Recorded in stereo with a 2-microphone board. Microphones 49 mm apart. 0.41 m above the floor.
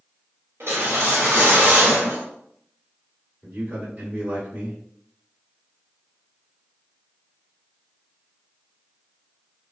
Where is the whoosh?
60° right (ahead or behind), 1.1 m.